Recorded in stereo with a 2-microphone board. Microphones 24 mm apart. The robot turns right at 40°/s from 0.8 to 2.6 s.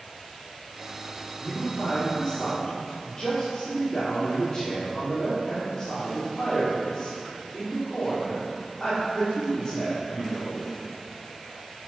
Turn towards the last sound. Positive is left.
turn(degrees=155)